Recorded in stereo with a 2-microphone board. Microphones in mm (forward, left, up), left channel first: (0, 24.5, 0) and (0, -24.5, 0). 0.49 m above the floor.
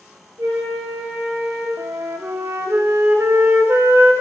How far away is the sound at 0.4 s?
About 4 m.